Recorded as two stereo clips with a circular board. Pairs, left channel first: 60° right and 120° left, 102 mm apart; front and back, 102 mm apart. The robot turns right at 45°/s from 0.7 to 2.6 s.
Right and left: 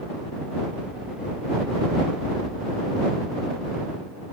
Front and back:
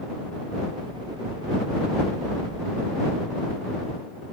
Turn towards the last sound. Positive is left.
No sound to turn to.